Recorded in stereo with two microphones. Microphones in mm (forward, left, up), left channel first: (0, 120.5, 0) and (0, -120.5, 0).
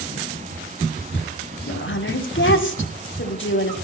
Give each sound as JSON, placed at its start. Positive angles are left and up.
{"t": 1.7, "sound": "a woman speaking", "side_deg": 50, "distance_m": 1.9}